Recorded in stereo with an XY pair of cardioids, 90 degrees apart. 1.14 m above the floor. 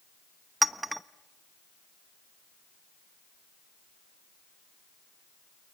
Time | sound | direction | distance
0.6 | a clink | 15° right | 0.9 m